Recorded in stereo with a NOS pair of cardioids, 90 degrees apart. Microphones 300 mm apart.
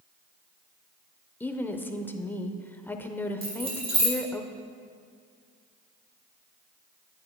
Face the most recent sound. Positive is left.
turn(degrees=-20)